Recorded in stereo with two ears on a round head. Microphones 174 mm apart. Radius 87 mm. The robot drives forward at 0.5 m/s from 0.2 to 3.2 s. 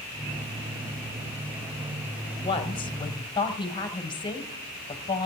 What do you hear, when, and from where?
2.4 s a woman speaking: 30° left (ahead or behind), 1.6 m; by 5.3 s 25° left (ahead or behind), 1.9 m